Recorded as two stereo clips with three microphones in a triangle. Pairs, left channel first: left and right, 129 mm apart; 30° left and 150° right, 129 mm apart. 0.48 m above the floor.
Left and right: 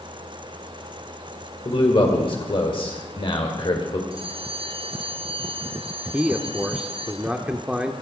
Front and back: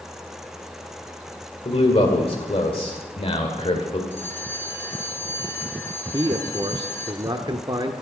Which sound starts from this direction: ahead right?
A bell, at 4.1 s.